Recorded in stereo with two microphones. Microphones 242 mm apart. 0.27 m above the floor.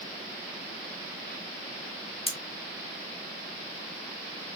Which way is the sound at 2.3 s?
25° left (ahead or behind).